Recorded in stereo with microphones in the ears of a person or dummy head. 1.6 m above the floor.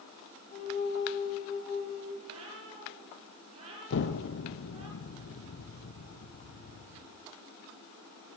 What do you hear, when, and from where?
0.5 s a flute: 40° left (ahead or behind), 5.5 m
2.2 s a cat meowing: 35° right (ahead or behind), 9 m
3.9 s an explosion: 60° left (ahead or behind), 1.6 m